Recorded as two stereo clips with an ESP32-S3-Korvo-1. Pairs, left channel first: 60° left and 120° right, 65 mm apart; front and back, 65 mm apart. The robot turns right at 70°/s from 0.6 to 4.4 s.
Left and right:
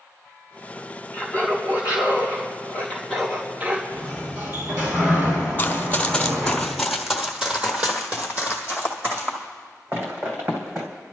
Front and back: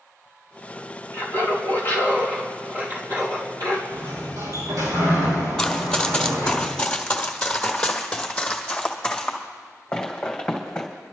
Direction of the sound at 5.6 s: 65° left.